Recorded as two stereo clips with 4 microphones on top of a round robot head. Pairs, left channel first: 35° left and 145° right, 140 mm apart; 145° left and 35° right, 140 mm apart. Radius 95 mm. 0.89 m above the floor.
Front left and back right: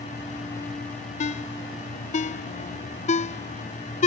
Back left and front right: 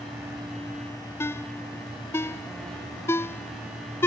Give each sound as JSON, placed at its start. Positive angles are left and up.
{"t": 1.2, "sound": "a ringtone", "azimuth_deg": 70}